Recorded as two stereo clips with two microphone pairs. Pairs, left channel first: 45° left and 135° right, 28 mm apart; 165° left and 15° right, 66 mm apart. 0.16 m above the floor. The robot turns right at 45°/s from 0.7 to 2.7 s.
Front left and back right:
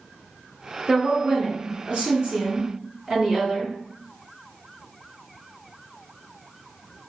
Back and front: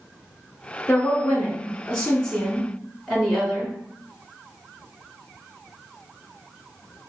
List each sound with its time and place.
0.9 s a woman speaking: straight behind, 1.8 m; by 3.7 s 100° right, 1.8 m